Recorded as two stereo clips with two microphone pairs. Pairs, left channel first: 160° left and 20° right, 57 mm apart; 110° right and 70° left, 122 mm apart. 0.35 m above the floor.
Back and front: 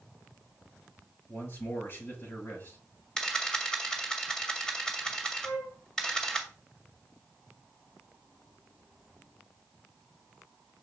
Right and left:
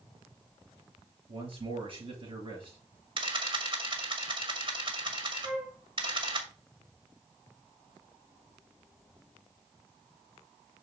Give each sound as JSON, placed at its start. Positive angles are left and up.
{"t": 1.3, "sound": "a man speaking", "azimuth_deg": 115, "distance_m": 6.5}
{"t": 3.2, "sound": "a camera shutter", "azimuth_deg": 85, "distance_m": 1.9}
{"t": 5.4, "sound": "a flute", "azimuth_deg": 150, "distance_m": 5.5}